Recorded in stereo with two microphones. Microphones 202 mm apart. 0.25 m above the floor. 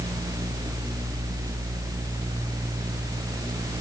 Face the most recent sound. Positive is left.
No sound to turn to.